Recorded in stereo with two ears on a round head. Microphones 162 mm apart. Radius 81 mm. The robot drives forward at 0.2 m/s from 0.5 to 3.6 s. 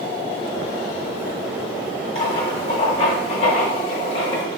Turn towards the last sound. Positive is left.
turn(degrees=30)  # may be behind; listen again after turning